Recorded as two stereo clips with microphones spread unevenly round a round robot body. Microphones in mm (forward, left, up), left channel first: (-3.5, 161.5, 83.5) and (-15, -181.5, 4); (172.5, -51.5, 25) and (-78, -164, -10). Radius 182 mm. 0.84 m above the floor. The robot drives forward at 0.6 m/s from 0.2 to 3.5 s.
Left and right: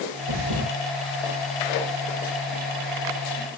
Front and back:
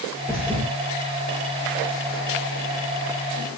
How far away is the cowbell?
No cowbell in this recording.